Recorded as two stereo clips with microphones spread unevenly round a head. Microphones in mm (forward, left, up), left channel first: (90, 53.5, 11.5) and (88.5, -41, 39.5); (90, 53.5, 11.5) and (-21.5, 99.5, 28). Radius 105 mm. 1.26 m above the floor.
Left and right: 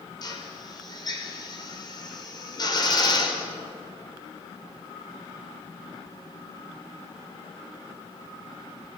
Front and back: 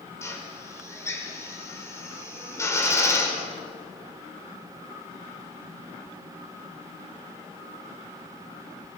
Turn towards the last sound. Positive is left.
turn(degrees=45)